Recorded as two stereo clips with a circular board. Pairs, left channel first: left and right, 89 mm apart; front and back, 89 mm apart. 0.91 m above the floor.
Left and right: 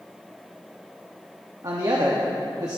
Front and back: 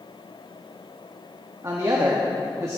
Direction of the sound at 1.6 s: 130° right.